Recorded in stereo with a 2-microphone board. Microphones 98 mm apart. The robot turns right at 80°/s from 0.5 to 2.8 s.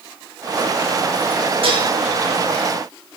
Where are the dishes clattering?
65° right (ahead or behind), 6.5 m; by 1.9 s 45° right (ahead or behind), 6.5 m.